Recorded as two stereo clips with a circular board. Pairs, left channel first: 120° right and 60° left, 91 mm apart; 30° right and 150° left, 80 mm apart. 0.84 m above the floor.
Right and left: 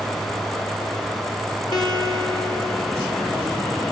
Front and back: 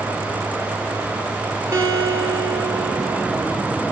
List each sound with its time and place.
1.7 s a guitar: 155° right, 3 m